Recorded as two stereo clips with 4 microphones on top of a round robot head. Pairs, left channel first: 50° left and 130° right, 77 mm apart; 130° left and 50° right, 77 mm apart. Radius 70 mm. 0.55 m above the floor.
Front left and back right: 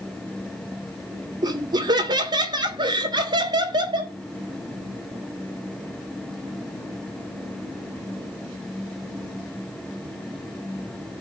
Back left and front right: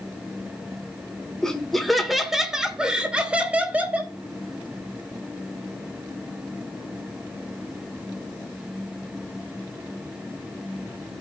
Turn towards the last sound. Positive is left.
turn(degrees=-115)